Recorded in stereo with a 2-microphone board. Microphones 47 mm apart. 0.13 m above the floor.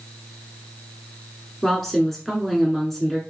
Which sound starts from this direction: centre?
A woman speaking, at 1.6 s.